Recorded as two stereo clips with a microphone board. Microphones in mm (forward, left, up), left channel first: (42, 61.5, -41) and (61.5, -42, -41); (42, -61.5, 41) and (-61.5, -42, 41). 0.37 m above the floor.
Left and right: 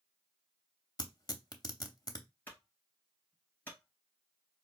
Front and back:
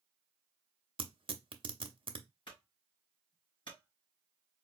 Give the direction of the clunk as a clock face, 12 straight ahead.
11 o'clock.